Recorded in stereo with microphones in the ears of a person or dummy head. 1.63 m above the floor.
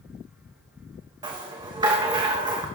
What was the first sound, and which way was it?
A rattle, 20° right (ahead or behind).